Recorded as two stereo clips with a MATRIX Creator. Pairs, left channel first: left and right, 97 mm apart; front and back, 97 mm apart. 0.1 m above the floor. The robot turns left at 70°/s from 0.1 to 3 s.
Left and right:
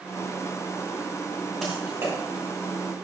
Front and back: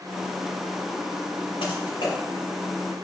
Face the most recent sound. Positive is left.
turn(degrees=-95)